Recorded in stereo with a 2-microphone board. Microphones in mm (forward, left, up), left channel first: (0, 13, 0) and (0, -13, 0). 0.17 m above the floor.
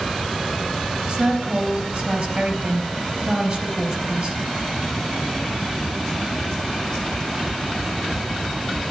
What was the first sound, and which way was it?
A woman speaking, 30° right (ahead or behind).